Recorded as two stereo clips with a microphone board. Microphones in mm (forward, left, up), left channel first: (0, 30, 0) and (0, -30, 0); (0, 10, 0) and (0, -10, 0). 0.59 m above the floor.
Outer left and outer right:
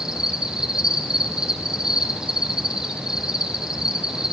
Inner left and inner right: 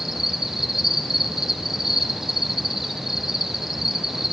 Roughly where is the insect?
Centre.